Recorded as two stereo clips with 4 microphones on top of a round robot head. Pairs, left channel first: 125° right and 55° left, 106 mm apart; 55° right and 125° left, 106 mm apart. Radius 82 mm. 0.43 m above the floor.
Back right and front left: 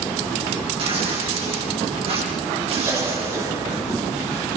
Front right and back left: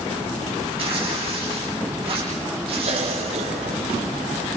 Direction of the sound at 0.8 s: 90° left.